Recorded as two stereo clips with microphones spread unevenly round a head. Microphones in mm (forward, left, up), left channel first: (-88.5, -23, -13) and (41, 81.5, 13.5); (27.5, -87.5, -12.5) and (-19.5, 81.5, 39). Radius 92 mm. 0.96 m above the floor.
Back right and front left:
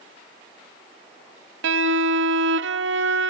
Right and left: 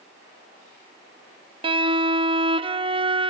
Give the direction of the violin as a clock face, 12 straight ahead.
11 o'clock.